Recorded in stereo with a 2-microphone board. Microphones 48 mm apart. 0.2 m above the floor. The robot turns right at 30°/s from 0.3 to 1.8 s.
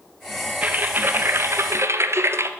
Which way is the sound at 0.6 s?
145° right.